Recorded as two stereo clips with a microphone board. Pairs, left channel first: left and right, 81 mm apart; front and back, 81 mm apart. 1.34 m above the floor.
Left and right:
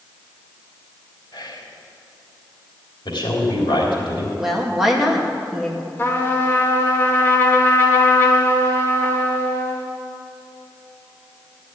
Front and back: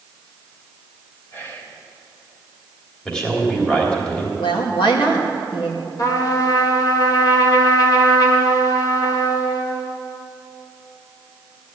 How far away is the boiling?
I don't hear boiling.